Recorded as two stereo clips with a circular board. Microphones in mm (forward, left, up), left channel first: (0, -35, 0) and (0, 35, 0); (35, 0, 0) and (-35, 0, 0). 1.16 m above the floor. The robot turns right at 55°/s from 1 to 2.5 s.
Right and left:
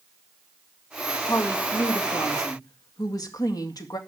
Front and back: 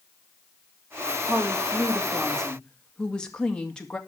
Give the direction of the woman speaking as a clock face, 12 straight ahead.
5 o'clock.